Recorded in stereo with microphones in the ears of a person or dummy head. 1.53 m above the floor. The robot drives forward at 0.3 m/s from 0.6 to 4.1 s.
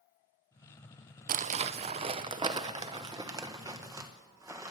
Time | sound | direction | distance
1.3 | crumpling | 40° right (ahead or behind) | 0.5 m